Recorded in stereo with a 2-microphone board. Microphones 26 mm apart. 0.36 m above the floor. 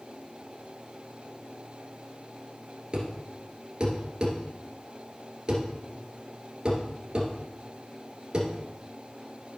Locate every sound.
2.9 s a thud: 35° right (ahead or behind), 2 m